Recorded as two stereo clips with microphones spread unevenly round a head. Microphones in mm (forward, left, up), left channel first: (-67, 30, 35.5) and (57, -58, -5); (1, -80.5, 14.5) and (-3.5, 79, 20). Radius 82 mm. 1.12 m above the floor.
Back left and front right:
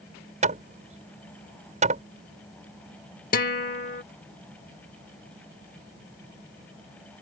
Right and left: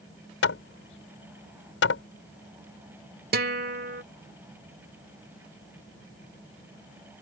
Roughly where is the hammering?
Right.